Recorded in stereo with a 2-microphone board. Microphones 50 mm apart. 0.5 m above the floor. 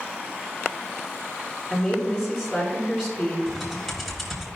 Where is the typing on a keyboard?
Centre (ahead or behind), 1.8 m.